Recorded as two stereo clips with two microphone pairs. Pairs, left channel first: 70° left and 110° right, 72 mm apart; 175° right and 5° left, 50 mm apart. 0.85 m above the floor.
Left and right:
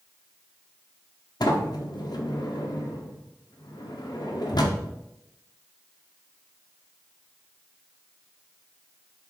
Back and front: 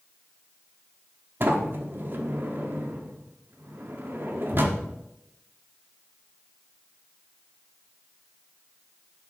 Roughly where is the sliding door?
Ahead left.